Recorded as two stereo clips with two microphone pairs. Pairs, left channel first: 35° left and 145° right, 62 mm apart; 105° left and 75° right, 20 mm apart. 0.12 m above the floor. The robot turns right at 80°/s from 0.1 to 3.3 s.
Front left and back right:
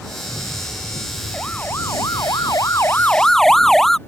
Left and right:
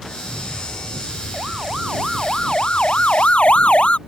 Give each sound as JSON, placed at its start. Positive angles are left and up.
{"t": 1.3, "sound": "a siren", "azimuth_deg": -40}